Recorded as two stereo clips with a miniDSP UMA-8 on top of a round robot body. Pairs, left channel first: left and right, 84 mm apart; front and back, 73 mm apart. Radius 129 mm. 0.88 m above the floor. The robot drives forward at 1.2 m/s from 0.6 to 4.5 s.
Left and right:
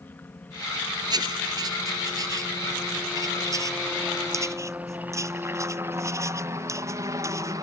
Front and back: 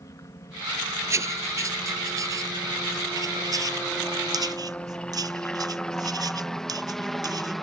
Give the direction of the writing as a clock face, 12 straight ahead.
4 o'clock.